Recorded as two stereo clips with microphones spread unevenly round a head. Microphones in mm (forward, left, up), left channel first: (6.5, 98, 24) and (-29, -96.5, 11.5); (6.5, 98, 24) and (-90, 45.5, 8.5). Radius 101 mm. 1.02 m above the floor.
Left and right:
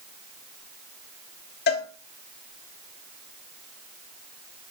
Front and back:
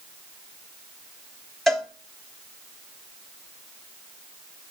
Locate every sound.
1.7 s a cowbell: 120° left, 1.1 m